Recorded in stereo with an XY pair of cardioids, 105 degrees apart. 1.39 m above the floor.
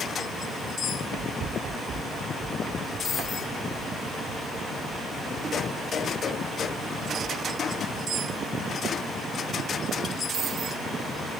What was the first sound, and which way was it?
Running footsteps, 55° right.